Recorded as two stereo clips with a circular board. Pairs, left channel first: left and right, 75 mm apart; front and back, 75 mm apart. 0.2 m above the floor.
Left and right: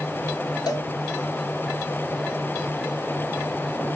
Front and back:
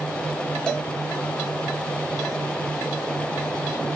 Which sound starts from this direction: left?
A cowbell, at 0.7 s.